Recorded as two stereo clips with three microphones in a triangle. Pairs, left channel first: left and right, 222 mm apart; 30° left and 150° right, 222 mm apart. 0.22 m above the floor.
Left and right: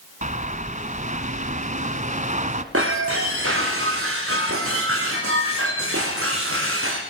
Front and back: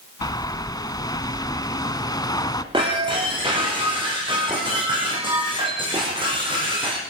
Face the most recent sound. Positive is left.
turn(degrees=-80)